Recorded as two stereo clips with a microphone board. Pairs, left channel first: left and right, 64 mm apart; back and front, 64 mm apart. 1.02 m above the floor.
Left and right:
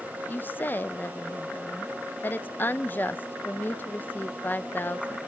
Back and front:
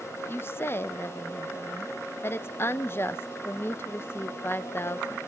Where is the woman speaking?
140° left, 0.7 m.